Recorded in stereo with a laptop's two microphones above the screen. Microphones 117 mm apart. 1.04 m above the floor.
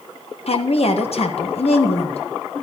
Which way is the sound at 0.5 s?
60° left (ahead or behind).